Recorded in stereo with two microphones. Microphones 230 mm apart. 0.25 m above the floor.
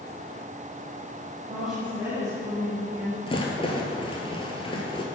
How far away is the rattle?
About 1.1 m.